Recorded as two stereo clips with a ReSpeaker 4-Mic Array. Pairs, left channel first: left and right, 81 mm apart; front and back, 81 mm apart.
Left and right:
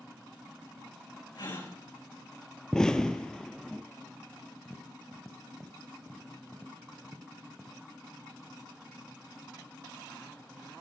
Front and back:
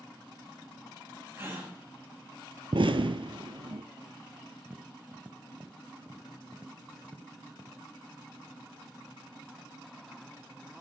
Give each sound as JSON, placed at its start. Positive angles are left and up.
{"t": 1.4, "sound": "a gasp", "azimuth_deg": 115, "distance_m": 8.5}
{"t": 2.7, "sound": "an explosion", "azimuth_deg": 170, "distance_m": 0.8}
{"t": 4.7, "sound": "tapping", "azimuth_deg": 175, "distance_m": 0.9}